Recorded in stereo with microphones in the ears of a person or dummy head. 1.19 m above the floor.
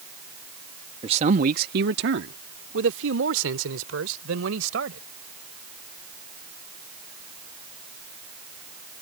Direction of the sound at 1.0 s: 30° right (ahead or behind).